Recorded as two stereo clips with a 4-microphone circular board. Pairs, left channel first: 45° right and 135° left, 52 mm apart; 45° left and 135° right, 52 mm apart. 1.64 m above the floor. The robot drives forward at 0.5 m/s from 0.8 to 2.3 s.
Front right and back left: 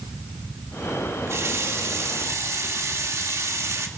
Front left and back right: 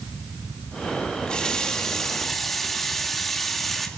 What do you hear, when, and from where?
1.3 s a running tap: 115° left, 1.8 m; by 3.9 s 130° left, 2 m